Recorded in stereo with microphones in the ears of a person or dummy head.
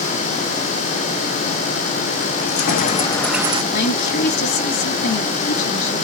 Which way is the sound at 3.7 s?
60° left (ahead or behind).